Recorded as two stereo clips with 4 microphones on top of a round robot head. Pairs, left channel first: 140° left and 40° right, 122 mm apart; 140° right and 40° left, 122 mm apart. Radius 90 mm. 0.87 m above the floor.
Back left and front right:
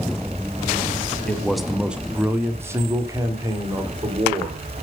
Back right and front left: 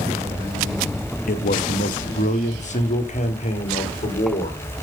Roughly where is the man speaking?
Behind right.